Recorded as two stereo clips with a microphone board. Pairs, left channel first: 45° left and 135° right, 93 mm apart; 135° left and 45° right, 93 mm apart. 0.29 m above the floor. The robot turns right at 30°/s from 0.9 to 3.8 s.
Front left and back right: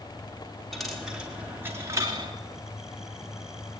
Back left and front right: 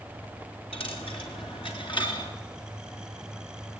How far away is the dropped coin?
About 4 m.